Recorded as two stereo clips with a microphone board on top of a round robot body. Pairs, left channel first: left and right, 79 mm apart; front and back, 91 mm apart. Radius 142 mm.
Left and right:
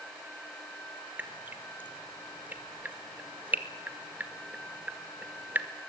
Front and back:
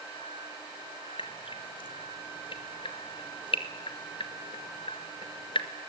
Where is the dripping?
20° right, 1.9 m.